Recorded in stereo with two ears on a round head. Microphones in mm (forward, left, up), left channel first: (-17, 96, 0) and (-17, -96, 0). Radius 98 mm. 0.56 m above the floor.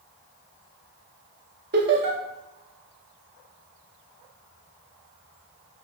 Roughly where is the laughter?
Right.